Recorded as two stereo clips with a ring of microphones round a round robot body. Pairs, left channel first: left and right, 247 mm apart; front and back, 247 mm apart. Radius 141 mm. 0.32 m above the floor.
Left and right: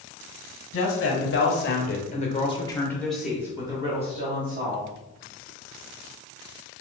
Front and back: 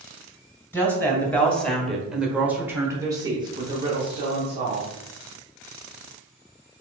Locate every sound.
0.7 s a woman speaking: 80° left, 1.5 m; by 4.9 s 120° right, 1.3 m